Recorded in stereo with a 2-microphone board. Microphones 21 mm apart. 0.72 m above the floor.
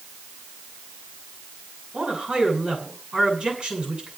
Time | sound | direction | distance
1.9 | a man speaking | 50° right (ahead or behind) | 8.5 m